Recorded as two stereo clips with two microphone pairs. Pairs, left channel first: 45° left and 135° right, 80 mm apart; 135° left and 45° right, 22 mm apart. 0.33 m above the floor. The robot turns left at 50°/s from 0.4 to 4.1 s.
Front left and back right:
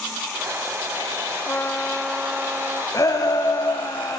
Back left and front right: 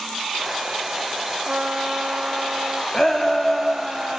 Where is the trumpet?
15° right, 0.8 m; by 2.8 s 80° right, 0.8 m.